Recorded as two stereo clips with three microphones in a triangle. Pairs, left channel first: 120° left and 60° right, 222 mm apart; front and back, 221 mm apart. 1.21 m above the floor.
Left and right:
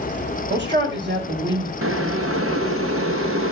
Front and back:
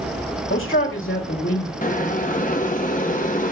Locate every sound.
0.5 s a man speaking: 25° right, 4.5 m
1.8 s boiling: 55° right, 1.2 m